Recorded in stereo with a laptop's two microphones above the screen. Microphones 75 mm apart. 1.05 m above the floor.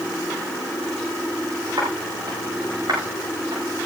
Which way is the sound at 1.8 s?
60° right (ahead or behind).